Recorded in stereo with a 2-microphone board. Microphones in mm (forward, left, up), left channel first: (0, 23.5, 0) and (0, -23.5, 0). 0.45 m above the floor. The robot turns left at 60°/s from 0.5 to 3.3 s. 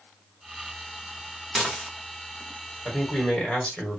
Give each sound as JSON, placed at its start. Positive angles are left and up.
{"t": 1.6, "sound": "dishes clattering", "side_deg": -5, "distance_m": 0.9}
{"t": 2.9, "sound": "a man speaking", "side_deg": 15, "distance_m": 1.4}